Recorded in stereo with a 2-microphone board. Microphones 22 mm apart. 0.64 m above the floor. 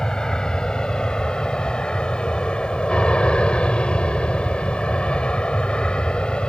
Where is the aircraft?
40° left (ahead or behind); by 6.5 s 55° left (ahead or behind).